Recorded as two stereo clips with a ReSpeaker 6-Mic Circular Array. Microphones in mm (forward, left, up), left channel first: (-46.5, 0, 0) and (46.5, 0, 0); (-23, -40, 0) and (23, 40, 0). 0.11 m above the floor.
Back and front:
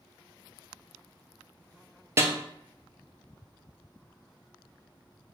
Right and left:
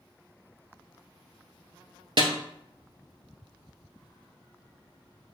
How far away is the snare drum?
About 0.5 m.